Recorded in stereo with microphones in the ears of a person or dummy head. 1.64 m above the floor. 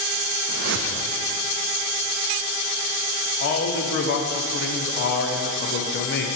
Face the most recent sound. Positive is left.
turn(degrees=50)  # may be behind; listen again after turning